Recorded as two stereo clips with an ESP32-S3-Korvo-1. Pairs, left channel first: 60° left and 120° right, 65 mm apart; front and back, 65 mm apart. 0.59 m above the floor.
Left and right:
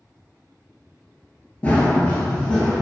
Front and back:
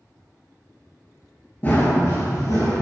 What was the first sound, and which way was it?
Running footsteps, 20° left.